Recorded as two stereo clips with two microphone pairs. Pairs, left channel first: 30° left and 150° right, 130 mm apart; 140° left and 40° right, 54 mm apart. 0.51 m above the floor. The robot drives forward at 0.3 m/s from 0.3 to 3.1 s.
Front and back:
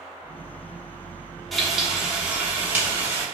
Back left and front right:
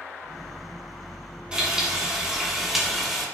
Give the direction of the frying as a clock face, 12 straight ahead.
2 o'clock.